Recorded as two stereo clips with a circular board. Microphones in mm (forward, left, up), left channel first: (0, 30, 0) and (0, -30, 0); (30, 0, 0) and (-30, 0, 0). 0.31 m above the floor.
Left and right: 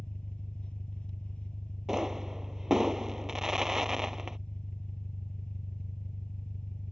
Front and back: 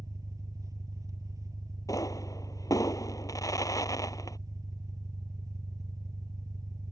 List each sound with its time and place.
0.0 s an engine running: 165° left
1.9 s a pop: 10° right